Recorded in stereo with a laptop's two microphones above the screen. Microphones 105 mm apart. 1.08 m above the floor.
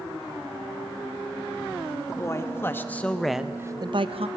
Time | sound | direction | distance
2.1 | a man speaking | 30° left (ahead or behind) | 2 m